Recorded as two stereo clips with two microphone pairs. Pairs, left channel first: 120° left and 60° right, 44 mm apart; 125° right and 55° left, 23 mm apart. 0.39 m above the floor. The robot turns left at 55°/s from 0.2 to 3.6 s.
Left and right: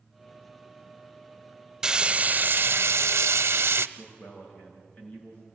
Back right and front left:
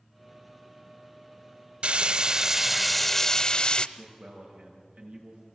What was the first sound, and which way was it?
Frying, 20° left.